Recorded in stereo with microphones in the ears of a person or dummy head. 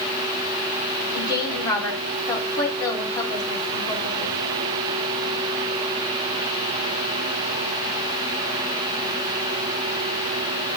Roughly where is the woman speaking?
Left.